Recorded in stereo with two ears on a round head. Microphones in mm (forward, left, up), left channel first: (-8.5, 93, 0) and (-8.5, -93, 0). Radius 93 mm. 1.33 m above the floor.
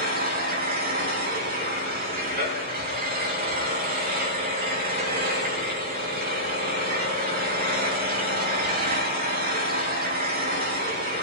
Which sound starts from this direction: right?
An engine running, at 0.0 s.